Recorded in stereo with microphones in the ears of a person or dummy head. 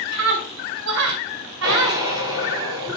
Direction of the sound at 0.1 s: 85° right.